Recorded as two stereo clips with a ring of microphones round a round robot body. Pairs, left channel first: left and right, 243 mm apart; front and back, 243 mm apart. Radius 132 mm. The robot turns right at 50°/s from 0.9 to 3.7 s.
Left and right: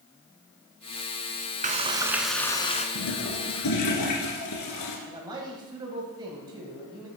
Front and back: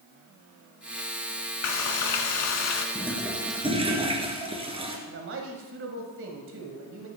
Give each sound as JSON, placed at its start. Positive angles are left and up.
{"t": 1.6, "sound": "frying", "azimuth_deg": -30, "distance_m": 1.3}
{"t": 3.0, "sound": "a toilet flushing", "azimuth_deg": 75, "distance_m": 2.0}
{"t": 5.1, "sound": "a man speaking", "azimuth_deg": -160, "distance_m": 1.4}